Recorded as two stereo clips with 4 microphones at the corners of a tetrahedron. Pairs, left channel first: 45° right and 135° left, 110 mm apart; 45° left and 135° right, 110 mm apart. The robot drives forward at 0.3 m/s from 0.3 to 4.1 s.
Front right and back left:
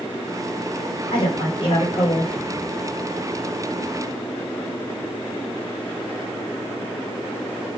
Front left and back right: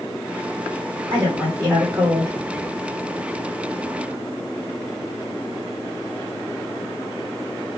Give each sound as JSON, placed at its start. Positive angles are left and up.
{"t": 1.1, "sound": "a woman speaking", "azimuth_deg": -75, "distance_m": 1.9}